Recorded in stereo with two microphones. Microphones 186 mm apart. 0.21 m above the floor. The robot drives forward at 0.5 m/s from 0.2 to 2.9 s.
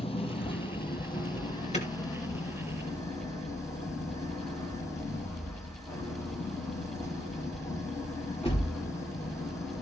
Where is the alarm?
35° left (ahead or behind), 2.5 m; by 8.7 s 30° left (ahead or behind), 3.5 m.